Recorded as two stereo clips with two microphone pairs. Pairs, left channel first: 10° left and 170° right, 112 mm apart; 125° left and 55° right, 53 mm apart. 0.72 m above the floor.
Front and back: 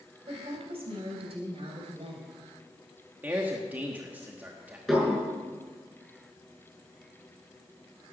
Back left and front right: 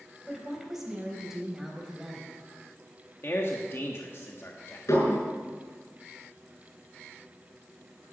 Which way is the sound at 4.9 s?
105° left.